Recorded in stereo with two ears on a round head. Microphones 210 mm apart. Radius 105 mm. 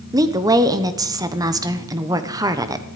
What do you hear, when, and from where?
0.1 s a woman speaking: 15° right (ahead or behind), 1.2 m